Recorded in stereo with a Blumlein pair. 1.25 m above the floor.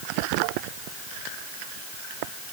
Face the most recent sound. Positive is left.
No sound to turn to.